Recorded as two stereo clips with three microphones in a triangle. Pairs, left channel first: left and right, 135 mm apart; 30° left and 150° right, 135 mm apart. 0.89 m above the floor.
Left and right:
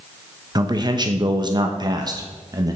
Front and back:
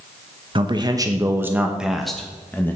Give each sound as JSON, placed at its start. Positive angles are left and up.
{"t": 0.6, "sound": "a man speaking", "azimuth_deg": -130, "distance_m": 1.1}